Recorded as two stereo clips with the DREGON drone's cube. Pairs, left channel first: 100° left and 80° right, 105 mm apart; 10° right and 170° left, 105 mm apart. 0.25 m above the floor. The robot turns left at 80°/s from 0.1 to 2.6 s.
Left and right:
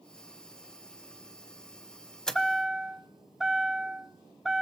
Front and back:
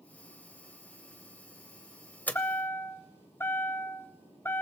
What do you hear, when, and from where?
2.3 s a chime: 30° left, 0.9 m; by 4.6 s straight ahead, 0.9 m